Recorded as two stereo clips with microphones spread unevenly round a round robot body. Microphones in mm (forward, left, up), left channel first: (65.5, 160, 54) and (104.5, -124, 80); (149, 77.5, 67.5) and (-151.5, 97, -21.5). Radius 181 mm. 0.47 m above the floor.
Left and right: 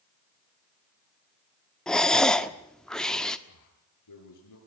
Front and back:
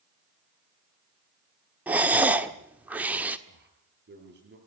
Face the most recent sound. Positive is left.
turn(degrees=120)